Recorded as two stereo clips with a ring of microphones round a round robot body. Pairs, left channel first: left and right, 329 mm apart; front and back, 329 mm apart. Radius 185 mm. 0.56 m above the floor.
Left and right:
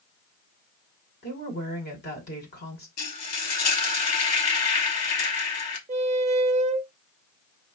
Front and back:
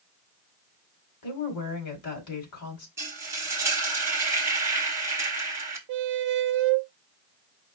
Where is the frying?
100° left, 1.2 m.